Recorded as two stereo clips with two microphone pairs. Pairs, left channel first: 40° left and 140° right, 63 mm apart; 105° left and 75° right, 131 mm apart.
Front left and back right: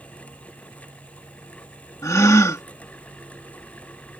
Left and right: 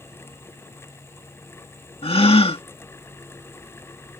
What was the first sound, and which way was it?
A gasp, 65° left.